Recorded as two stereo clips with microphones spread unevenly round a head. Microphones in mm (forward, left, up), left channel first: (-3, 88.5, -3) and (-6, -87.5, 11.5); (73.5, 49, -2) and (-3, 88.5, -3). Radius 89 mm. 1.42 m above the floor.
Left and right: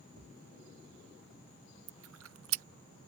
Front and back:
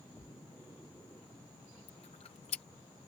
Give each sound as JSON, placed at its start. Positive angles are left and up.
{"t": 0.2, "sound": "a thud", "azimuth_deg": -120}
{"t": 1.9, "sound": "chewing", "azimuth_deg": -75}